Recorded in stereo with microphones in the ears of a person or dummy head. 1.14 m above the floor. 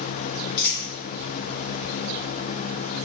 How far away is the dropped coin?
About 1.5 m.